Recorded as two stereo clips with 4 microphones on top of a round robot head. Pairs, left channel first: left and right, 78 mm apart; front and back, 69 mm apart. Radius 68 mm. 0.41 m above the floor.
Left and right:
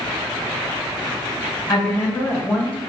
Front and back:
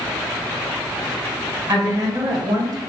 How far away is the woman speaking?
About 3.5 m.